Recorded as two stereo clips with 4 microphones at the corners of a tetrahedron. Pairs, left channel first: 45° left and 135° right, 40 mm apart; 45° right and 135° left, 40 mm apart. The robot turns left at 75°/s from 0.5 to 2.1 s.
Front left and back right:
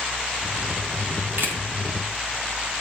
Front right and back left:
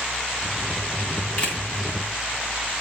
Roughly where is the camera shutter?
Right.